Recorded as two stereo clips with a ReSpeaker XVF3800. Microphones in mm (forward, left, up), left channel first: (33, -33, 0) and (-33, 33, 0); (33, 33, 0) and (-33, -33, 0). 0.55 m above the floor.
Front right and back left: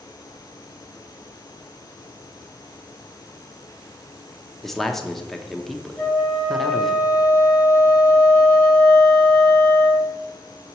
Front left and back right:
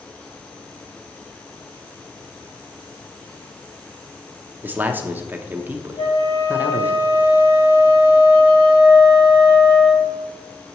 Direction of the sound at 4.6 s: 125° right.